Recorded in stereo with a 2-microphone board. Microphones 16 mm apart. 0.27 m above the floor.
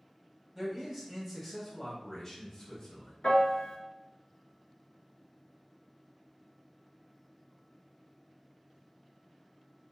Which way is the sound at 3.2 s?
70° left (ahead or behind).